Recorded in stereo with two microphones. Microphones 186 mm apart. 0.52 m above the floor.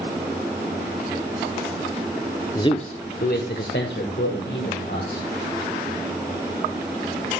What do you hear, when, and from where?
2.5 s a man speaking: 20° left (ahead or behind), 0.7 m; by 5.3 s 75° left (ahead or behind), 3 m